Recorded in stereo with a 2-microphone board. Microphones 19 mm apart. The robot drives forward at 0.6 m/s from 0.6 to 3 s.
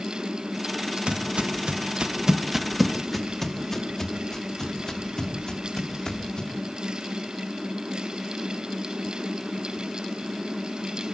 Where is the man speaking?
I don't hear a man speaking.